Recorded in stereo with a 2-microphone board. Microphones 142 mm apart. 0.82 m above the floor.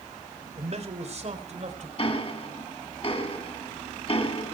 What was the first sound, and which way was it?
A man speaking, 50° right (ahead or behind).